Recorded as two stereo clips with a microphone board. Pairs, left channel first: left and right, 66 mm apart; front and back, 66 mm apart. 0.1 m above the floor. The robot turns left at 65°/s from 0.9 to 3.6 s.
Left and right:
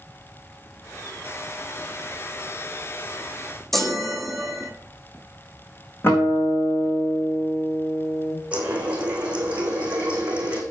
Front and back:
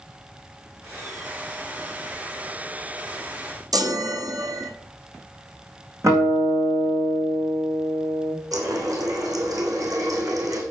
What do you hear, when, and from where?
3.7 s a chime: 175° left, 1.3 m
6.0 s a guitar: 145° left, 4.5 m
8.5 s a running tap: 160° right, 3.5 m